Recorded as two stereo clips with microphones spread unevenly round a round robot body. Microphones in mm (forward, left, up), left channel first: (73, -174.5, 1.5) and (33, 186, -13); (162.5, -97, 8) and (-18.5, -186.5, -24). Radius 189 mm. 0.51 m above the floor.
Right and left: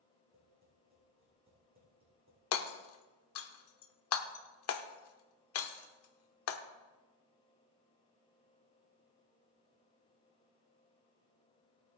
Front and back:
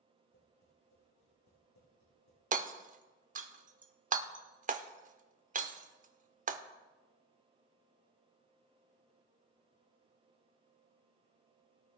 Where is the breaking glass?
I don't hear breaking glass.